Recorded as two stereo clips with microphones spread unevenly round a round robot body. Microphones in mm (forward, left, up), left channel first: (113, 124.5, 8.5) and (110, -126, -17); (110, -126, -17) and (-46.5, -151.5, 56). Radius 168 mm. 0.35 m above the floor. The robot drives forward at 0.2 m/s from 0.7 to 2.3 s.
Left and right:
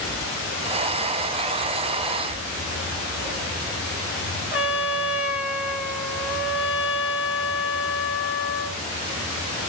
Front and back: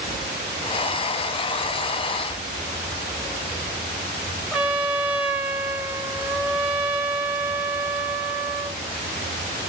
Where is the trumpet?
30° right, 0.8 m.